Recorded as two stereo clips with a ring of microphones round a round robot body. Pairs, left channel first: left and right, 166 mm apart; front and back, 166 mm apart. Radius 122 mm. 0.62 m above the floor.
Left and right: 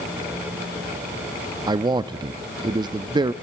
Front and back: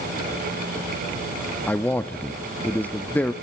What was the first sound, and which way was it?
A man speaking, 70° right.